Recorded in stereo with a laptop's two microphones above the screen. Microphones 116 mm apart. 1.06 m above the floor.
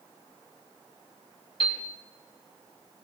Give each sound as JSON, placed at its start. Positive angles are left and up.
{"t": 1.6, "sound": "a piano", "side_deg": 50, "distance_m": 3.5}